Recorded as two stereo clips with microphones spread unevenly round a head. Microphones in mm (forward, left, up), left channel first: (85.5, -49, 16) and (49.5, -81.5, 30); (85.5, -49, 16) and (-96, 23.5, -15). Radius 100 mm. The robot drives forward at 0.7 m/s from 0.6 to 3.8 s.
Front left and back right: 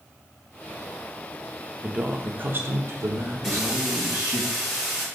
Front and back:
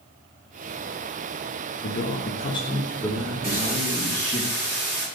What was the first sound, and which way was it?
A man speaking, 65° right.